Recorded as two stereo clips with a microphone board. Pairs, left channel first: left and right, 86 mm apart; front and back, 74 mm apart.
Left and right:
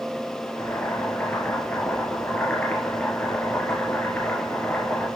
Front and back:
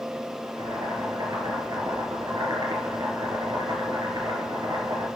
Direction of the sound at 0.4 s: 160° left.